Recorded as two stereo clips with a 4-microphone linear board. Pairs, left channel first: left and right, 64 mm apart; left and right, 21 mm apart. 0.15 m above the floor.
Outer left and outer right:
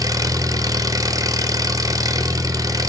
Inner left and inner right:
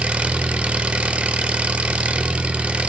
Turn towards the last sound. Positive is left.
turn(degrees=-70)  # may be behind; listen again after turning